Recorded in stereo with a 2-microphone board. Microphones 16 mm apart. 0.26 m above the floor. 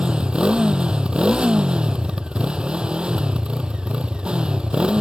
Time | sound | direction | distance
0.0 | a motorcycle | 70° right (ahead or behind) | ?